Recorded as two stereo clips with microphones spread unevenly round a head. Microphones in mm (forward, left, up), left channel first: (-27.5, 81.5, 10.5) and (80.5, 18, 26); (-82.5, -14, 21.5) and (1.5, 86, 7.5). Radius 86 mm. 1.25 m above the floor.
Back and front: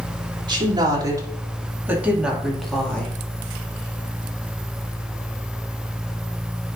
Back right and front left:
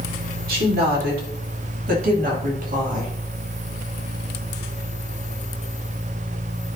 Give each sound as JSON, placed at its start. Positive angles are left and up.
{"t": 0.5, "sound": "a woman speaking", "azimuth_deg": 20, "distance_m": 3.0}